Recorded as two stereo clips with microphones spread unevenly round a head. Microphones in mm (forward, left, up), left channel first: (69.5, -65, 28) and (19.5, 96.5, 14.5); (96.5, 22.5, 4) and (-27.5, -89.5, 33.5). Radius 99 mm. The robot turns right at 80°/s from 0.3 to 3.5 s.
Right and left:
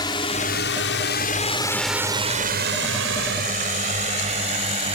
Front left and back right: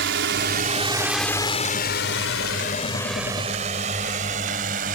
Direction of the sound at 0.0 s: 140° right.